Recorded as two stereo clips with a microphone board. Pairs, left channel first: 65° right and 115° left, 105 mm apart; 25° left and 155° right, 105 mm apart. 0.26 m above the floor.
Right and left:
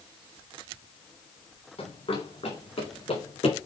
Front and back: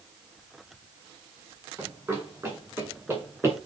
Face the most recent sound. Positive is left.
turn(degrees=-85)